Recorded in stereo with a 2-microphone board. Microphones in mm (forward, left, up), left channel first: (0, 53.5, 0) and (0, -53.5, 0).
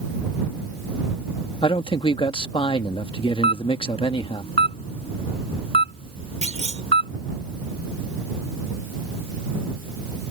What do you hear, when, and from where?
1.6 s a man speaking: 50° left (ahead or behind)
3.4 s a camera shutter: 60° left (ahead or behind)
6.4 s a clunk: 80° right